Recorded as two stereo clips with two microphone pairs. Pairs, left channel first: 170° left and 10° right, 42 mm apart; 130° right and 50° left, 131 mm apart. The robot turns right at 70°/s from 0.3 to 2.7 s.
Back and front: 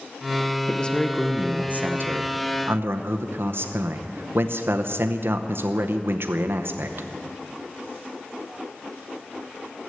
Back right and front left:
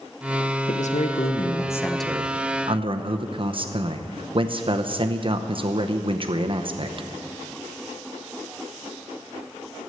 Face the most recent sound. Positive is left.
turn(degrees=5)